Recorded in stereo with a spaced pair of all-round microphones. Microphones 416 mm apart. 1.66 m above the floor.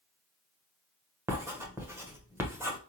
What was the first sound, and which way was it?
Writing, 5° right (ahead or behind).